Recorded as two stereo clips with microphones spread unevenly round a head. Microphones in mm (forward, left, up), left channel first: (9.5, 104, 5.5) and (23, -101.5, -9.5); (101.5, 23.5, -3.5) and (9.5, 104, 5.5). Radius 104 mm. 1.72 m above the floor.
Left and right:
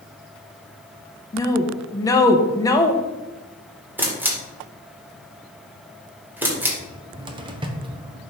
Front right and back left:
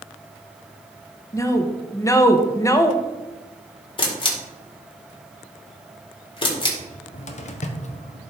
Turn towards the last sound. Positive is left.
turn(degrees=-20)